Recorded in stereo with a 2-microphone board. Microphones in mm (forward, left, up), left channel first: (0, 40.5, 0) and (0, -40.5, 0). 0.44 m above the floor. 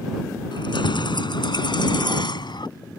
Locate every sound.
0.5 s keys jangling: 80° left; by 2.7 s 70° left (ahead or behind)